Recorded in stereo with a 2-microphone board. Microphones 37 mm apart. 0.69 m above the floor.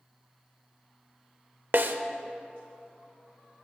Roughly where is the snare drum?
Right.